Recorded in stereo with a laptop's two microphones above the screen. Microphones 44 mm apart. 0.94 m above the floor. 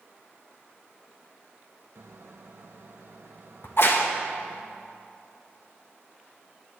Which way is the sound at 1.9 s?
60° right (ahead or behind).